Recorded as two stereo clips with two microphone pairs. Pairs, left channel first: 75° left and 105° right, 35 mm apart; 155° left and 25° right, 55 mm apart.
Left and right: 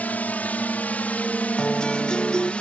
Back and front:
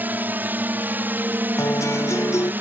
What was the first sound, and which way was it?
A drone, 35° left.